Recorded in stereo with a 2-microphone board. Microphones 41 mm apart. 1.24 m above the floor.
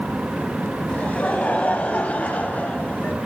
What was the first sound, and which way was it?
Laughter, 35° left (ahead or behind).